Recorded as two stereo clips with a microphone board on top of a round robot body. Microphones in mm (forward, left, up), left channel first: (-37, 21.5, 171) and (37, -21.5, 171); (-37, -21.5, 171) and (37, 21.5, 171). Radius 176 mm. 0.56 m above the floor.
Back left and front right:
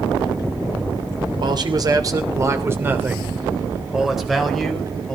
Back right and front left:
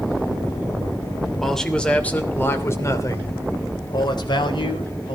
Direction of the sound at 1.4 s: 60° right.